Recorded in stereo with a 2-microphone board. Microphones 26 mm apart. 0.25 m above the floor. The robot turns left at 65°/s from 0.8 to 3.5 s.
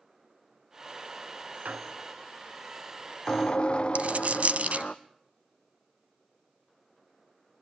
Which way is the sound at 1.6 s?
110° right.